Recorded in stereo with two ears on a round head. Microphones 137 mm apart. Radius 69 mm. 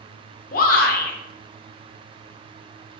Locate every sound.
0.5 s a shout: 60° left (ahead or behind), 0.6 m